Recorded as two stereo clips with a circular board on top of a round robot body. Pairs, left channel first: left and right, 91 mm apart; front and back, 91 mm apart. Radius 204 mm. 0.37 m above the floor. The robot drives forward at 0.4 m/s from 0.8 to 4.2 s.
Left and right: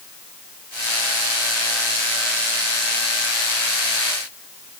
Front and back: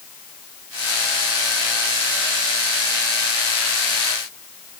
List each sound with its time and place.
Only background noise.